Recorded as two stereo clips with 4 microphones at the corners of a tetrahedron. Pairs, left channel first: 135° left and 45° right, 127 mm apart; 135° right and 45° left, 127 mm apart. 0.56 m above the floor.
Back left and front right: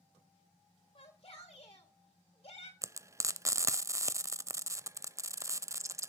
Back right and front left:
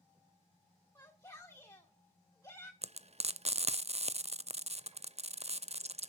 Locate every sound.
0.9 s a shout: 165° left, 1.8 m
2.8 s frying: 20° left, 0.5 m